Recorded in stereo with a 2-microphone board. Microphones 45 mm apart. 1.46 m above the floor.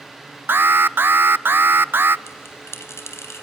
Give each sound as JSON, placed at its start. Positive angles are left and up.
{"t": 0.5, "sound": "an alarm", "side_deg": -50, "distance_m": 0.6}
{"t": 2.3, "sound": "a bell", "side_deg": 70, "distance_m": 3.0}